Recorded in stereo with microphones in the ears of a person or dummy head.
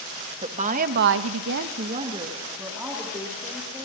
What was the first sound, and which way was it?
A woman speaking, 40° right (ahead or behind).